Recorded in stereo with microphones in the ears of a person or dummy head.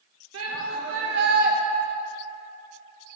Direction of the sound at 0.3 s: 70° right (ahead or behind).